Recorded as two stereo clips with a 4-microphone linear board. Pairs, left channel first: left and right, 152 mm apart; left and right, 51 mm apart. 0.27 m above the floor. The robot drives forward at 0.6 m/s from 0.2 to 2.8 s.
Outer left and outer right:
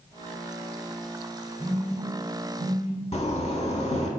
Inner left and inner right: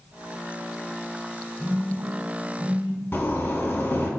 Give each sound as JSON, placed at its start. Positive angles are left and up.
{"t": 1.6, "sound": "a phone buzzing", "side_deg": -35, "distance_m": 1.0}
{"t": 3.1, "sound": "a zipper", "side_deg": 45, "distance_m": 0.5}